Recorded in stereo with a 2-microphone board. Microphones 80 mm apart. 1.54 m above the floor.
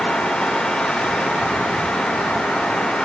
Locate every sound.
Only background noise.